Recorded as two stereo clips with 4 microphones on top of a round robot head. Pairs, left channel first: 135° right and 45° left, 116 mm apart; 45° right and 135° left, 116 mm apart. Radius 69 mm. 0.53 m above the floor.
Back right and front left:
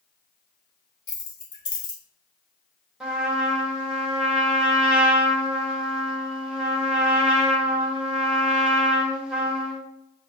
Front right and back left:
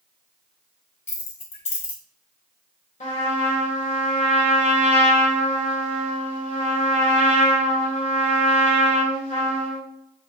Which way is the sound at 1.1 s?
75° right.